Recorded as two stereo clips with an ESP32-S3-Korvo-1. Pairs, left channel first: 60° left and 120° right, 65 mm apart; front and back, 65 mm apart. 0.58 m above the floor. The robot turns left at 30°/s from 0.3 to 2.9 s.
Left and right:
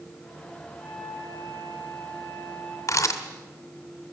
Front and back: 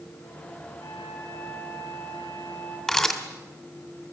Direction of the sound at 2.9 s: 85° left.